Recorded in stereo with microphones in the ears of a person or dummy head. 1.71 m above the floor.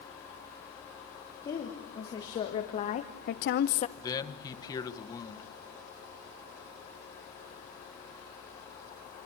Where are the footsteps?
I don't hear footsteps.